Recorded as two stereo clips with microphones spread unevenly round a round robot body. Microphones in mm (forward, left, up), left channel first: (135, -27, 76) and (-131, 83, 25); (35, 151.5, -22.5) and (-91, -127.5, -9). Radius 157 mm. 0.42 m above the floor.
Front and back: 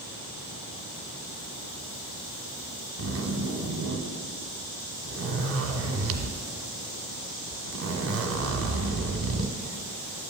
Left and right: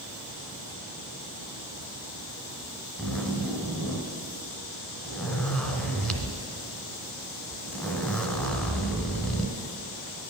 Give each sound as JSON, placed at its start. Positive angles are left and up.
{"t": 3.0, "sound": "a zipper", "azimuth_deg": 155, "distance_m": 1.3}